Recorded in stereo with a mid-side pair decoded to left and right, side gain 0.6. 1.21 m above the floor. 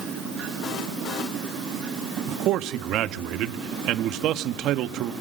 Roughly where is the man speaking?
Ahead right.